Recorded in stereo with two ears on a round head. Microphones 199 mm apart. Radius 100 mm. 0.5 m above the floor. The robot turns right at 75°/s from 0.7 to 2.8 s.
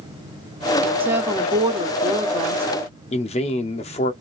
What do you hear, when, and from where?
1.0 s a woman speaking: 10° right (ahead or behind), 0.8 m
3.1 s a man speaking: 30° left (ahead or behind), 0.7 m